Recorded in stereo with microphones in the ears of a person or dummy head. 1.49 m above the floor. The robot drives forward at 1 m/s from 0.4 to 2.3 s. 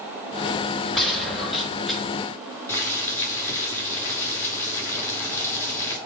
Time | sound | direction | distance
0.9 | a gunshot | centre (ahead or behind) | 7 m
2.7 | boiling | 10° left (ahead or behind) | 4.5 m